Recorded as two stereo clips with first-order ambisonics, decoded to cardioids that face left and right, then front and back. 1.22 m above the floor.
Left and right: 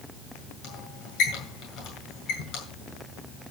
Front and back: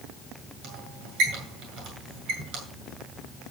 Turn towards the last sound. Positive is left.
turn(degrees=135)